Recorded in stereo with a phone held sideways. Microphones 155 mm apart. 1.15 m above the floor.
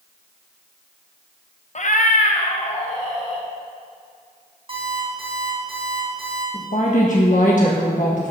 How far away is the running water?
I don't hear running water.